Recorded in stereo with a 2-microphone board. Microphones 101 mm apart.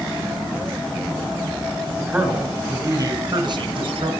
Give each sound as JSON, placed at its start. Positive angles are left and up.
{"t": 2.0, "sound": "a man speaking", "side_deg": -10, "distance_m": 3.5}